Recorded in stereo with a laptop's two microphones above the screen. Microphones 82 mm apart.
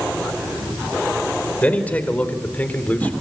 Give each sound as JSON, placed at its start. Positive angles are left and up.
{"t": 1.6, "sound": "a man speaking", "side_deg": 20, "distance_m": 4.0}